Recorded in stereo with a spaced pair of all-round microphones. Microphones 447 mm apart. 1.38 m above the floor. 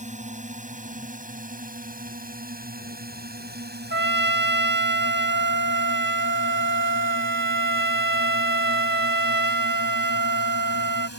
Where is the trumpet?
25° right (ahead or behind).